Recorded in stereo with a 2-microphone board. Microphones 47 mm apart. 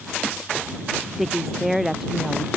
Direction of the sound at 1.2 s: 5° right (ahead or behind).